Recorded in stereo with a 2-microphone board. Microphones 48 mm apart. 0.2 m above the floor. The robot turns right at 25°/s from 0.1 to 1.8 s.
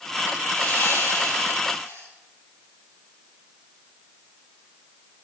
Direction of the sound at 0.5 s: 45° left.